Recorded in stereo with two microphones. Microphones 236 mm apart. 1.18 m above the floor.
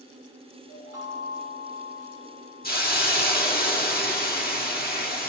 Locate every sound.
0.7 s a chime: 85° left, 7 m
2.6 s a hiss: 40° left (ahead or behind), 1.6 m